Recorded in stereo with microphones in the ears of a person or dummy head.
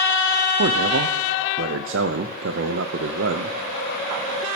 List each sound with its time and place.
0.6 s a man speaking: 60° right (ahead or behind), 0.5 m